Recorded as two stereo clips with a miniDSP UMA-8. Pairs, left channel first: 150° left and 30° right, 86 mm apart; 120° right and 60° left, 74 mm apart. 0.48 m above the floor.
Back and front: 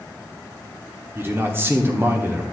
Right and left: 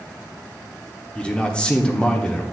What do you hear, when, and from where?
1.1 s a man speaking: 55° right, 0.9 m